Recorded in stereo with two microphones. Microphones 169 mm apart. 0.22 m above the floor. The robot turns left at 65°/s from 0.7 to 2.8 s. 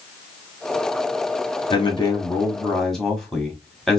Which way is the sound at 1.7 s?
75° left.